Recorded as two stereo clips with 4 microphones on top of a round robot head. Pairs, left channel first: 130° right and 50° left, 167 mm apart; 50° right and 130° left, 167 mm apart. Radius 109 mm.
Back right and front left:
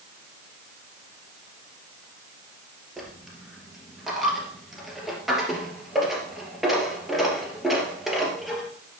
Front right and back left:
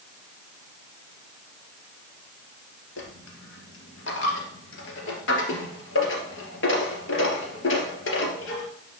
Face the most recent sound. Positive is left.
turn(degrees=-40)